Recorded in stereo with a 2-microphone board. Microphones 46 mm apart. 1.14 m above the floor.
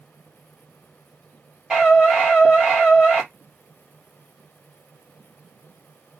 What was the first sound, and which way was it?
A scream, 5° right (ahead or behind).